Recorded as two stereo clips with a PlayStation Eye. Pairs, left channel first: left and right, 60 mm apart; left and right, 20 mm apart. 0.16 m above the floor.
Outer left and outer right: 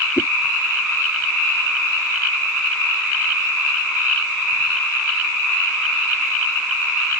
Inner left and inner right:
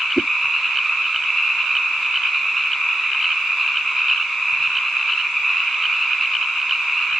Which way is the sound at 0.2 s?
45° left (ahead or behind).